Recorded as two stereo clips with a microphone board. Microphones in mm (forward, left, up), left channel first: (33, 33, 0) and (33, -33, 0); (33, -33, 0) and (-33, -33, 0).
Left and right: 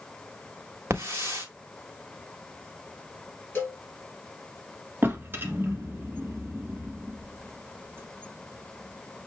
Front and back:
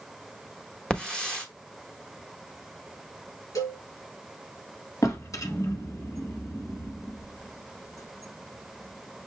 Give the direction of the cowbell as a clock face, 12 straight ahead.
11 o'clock.